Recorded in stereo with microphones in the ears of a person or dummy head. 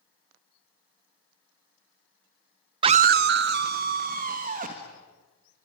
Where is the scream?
25° right (ahead or behind), 0.5 m; by 4.9 s 40° right (ahead or behind), 2.5 m.